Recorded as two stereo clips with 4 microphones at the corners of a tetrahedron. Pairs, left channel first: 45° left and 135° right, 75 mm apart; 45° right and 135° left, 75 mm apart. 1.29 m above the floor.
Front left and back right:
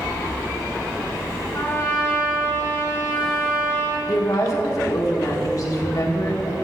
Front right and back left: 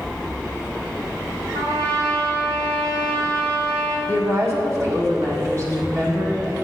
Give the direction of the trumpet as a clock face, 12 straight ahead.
8 o'clock.